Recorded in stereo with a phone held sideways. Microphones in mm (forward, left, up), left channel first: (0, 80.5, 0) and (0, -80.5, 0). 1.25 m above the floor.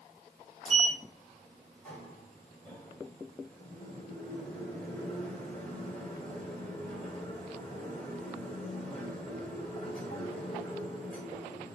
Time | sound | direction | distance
0.7 | a sliding door | 5° left (ahead or behind) | 3.5 m